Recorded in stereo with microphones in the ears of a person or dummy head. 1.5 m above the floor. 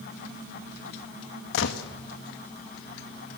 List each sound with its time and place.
1.5 s a gunshot: 65° left (ahead or behind), 1.6 m